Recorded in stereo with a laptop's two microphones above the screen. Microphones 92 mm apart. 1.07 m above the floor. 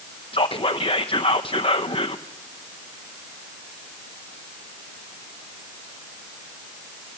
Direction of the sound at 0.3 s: 70° left (ahead or behind).